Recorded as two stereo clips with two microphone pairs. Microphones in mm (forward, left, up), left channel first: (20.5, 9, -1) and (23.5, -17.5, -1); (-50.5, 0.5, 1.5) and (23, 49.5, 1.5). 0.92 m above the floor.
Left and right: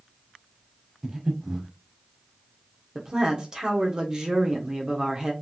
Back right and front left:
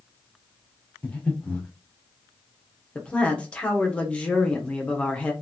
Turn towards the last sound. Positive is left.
turn(degrees=-85)